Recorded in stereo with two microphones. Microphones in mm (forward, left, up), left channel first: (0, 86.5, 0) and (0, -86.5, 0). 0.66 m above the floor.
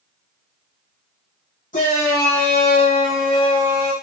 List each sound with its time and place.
1.7 s a shout: 45° left (ahead or behind), 1.0 m